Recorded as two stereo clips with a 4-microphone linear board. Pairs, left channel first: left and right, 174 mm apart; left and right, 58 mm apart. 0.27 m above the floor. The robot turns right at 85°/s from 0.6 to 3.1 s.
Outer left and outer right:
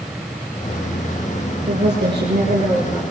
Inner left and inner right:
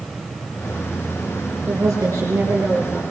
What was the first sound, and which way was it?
A woman speaking, 120° right.